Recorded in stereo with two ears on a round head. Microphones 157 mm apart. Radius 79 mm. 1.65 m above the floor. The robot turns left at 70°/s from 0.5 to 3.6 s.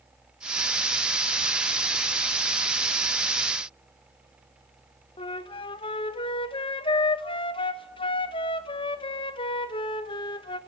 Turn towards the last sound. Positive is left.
turn(degrees=30)  # may be behind; listen again after turning